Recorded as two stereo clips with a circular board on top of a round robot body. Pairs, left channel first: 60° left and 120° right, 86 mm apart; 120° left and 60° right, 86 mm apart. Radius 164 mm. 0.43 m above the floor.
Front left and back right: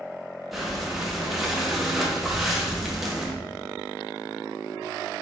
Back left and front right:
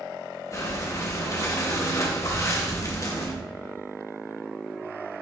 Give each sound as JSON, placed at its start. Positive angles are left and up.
{"t": 0.5, "sound": "breathing", "azimuth_deg": 155, "distance_m": 1.5}